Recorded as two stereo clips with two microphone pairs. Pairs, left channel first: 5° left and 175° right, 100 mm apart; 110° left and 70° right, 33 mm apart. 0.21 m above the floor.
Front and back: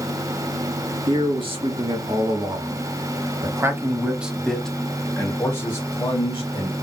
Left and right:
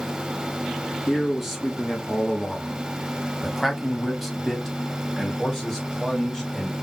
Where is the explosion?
No explosion in this recording.